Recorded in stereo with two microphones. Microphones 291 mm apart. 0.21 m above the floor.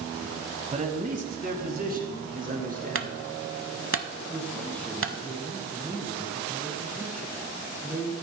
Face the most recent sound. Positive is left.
turn(degrees=5)  # may be behind; listen again after turning